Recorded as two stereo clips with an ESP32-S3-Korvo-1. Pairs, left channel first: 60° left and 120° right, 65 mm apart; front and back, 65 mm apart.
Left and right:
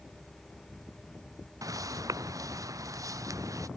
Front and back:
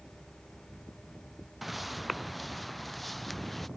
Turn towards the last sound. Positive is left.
turn(degrees=-90)